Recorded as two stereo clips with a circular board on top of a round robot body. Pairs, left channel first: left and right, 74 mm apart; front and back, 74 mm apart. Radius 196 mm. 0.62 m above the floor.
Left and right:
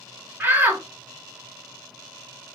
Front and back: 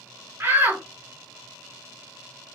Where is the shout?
135° right, 1.4 m.